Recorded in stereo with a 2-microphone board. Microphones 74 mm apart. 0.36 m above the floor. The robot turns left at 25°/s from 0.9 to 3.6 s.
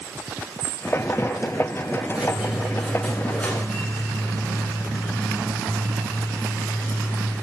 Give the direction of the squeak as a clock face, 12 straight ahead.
5 o'clock.